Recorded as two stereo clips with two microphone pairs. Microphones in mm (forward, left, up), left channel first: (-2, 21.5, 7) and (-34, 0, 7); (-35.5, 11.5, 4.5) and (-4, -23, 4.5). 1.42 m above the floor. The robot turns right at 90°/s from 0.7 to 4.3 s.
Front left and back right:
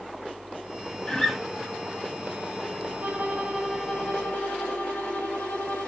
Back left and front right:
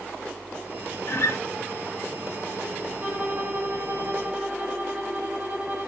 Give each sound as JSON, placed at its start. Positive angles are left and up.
{"t": 1.1, "sound": "a guitar", "azimuth_deg": 105, "distance_m": 0.5}
{"t": 3.0, "sound": "a violin", "azimuth_deg": -115, "distance_m": 0.8}